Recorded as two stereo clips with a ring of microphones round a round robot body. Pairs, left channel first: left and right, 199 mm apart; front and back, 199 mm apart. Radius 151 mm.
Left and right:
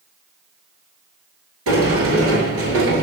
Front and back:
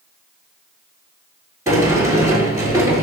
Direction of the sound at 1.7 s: 105° right.